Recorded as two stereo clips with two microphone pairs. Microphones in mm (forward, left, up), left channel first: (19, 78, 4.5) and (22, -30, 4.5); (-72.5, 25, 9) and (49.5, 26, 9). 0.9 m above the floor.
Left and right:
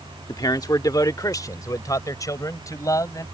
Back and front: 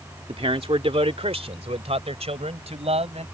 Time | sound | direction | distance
0.3 | a man speaking | 40° left | ?